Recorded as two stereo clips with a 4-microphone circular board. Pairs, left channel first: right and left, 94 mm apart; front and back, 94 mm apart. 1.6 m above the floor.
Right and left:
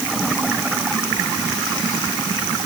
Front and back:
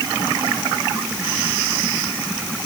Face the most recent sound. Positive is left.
No sound to turn to.